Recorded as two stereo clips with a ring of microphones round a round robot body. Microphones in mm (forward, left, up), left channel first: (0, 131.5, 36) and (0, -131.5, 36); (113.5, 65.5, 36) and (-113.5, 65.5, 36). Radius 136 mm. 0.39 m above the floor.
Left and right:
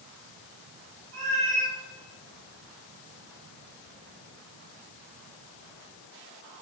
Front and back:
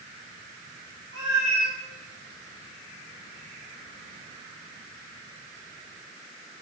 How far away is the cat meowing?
About 5.5 m.